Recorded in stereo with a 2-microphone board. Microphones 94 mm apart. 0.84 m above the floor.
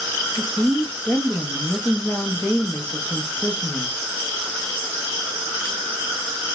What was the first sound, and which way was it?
A woman speaking, 15° left (ahead or behind).